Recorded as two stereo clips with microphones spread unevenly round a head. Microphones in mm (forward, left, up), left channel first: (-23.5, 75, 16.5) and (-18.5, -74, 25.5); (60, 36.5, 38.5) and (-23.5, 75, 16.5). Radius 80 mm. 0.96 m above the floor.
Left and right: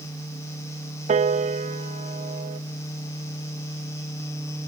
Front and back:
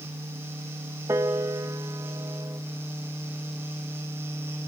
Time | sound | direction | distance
1.1 | a piano | 135° right | 0.6 m